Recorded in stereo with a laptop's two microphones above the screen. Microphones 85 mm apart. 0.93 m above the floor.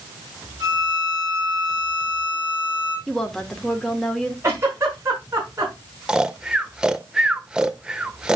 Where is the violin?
40° right (ahead or behind), 4 m.